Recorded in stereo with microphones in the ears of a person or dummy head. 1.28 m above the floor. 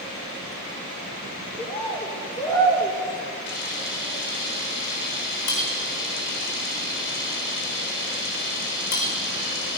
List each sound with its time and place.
1.6 s a bird: 15° left (ahead or behind), 4 m
3.5 s a camera shutter: 65° left (ahead or behind), 5.5 m